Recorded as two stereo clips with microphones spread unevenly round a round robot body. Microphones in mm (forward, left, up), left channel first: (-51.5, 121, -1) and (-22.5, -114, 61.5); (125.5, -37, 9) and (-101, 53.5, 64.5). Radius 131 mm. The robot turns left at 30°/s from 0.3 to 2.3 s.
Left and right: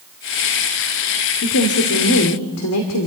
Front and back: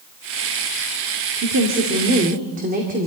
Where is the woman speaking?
125° left, 2.5 m; by 3.1 s 95° left, 2.5 m.